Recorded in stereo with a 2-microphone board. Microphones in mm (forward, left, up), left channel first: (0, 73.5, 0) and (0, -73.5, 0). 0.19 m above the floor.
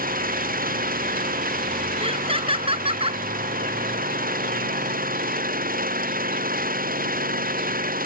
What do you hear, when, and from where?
0.0 s an engine running: 75° right (ahead or behind)
2.0 s laughter: 40° right (ahead or behind)